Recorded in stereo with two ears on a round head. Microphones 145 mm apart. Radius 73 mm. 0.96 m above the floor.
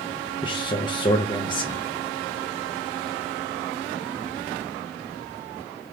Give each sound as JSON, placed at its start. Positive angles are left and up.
{"t": 0.4, "sound": "a man speaking", "side_deg": 30, "distance_m": 0.6}